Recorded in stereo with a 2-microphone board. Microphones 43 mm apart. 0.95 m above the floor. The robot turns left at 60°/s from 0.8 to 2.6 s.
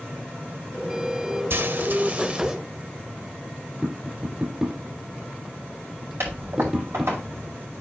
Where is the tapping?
20° right (ahead or behind), 3 m.